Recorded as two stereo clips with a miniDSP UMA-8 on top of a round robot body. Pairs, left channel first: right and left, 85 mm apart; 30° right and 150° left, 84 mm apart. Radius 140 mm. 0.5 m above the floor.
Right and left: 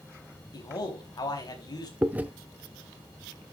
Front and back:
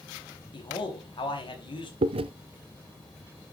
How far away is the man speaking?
About 4.5 m.